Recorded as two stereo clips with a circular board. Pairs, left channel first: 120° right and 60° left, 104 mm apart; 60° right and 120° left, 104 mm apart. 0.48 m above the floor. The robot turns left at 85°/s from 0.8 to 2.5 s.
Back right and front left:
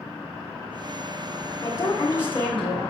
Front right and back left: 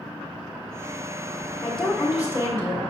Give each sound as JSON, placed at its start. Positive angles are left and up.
{"t": 1.6, "sound": "a woman speaking", "azimuth_deg": -125, "distance_m": 1.6}